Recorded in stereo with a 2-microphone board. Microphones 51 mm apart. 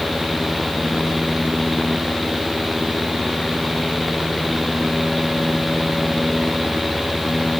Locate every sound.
Only background noise.